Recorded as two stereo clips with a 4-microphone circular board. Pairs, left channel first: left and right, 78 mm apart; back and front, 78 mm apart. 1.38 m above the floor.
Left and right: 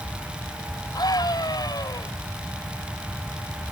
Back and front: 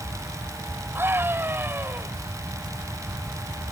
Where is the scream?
60° left.